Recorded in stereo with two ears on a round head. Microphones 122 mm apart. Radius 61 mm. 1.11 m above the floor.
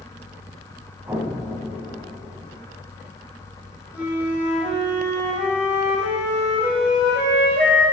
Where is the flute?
10° right (ahead or behind), 2.5 m.